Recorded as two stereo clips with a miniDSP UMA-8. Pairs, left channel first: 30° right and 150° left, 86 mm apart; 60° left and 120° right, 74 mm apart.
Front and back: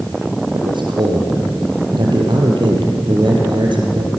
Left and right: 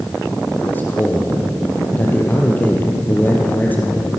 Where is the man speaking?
125° left, 4.5 m.